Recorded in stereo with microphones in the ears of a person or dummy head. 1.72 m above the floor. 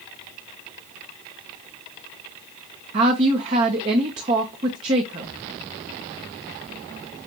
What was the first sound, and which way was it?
A woman speaking, 20° right (ahead or behind).